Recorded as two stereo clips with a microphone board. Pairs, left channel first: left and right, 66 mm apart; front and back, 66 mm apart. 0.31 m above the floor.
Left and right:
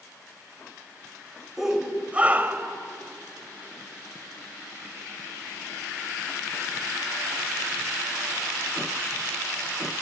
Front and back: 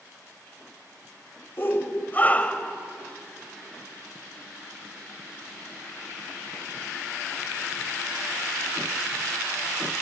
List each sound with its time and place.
1.6 s a shout: 10° right, 1.6 m; by 2.8 s 60° right, 1.6 m